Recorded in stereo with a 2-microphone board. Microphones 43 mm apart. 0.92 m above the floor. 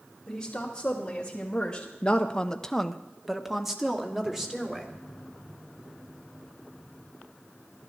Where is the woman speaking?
15° left (ahead or behind), 3 m; by 4.9 s 10° right (ahead or behind), 3 m.